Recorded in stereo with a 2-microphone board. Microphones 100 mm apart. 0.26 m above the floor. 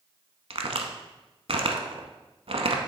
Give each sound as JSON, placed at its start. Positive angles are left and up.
{"t": 0.5, "sound": "a crack", "side_deg": -75, "distance_m": 0.7}